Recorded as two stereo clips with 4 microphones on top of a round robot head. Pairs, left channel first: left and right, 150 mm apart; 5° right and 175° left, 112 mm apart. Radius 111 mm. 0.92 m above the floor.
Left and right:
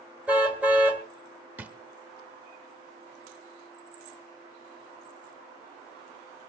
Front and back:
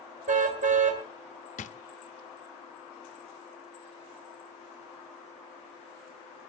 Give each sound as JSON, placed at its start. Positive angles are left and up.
{"t": 0.3, "sound": "a car horn", "azimuth_deg": -170, "distance_m": 2.0}
{"t": 1.6, "sound": "a drawer", "azimuth_deg": -10, "distance_m": 0.6}